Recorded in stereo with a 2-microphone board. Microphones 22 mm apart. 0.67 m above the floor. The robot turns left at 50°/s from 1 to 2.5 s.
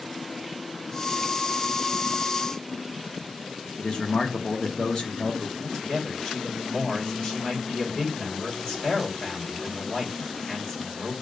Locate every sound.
3.8 s a man speaking: 45° left (ahead or behind), 0.9 m
5.6 s a man speaking: 55° left (ahead or behind), 1.9 m